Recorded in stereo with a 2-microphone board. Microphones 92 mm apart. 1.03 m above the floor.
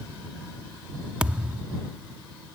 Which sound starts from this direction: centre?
A thud, at 1.2 s.